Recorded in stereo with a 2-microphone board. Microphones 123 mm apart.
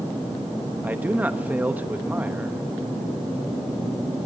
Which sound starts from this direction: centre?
A man speaking, at 0.8 s.